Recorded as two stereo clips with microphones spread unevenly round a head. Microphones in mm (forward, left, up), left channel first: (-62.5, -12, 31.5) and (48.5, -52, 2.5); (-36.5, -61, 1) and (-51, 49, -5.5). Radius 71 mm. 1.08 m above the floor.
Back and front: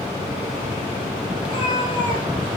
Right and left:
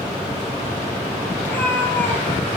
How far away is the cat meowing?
About 4.5 m.